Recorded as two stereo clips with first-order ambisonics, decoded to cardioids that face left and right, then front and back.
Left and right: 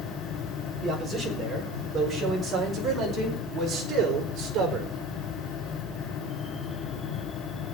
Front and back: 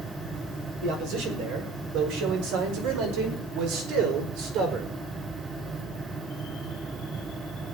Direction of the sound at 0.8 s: Straight behind.